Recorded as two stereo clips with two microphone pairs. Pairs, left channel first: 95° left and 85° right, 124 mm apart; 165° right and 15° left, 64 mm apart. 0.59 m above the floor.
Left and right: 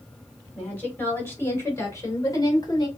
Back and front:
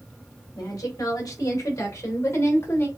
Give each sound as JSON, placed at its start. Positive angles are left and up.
{"t": 0.6, "sound": "a woman speaking", "azimuth_deg": 175, "distance_m": 3.5}